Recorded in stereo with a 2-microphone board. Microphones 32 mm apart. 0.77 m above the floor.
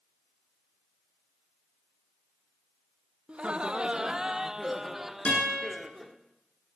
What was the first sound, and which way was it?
Laughter, 35° right (ahead or behind).